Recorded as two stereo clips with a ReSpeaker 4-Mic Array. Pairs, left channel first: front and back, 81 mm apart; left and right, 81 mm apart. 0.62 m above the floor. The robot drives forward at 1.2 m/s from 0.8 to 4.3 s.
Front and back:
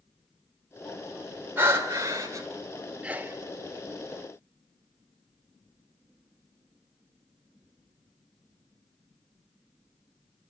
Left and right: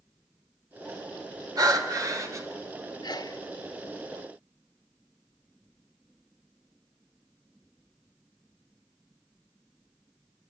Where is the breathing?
120° right, 2.5 m; by 2.5 s 140° right, 3.5 m.